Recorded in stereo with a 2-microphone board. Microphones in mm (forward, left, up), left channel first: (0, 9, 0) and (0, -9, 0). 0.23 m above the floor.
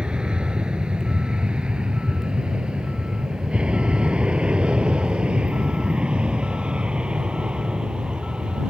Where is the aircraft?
60° right (ahead or behind); by 8.7 s 75° right (ahead or behind).